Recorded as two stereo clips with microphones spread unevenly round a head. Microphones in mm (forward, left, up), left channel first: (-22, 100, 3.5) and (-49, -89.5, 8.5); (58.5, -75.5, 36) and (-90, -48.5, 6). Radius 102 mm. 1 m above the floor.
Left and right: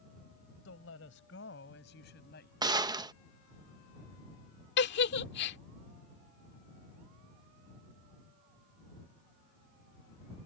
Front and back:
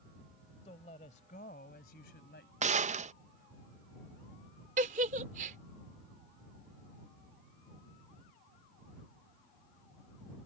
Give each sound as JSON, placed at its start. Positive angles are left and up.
{"t": 0.7, "sound": "a woman speaking", "azimuth_deg": 50}
{"t": 2.6, "sound": "a gunshot", "azimuth_deg": -165}
{"t": 4.8, "sound": "a giggle", "azimuth_deg": 115}